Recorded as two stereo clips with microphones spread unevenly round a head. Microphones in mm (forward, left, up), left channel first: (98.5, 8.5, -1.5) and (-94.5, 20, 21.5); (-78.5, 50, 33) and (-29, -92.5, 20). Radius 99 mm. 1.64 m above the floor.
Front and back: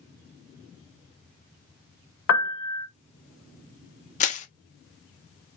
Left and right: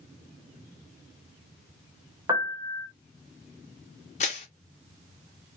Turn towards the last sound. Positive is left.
turn(degrees=50)